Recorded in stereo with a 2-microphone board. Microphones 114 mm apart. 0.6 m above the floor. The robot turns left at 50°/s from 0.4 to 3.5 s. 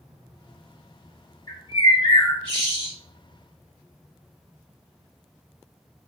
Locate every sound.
1.5 s a bird: 125° left, 1.5 m; by 2.9 s 50° left, 1.5 m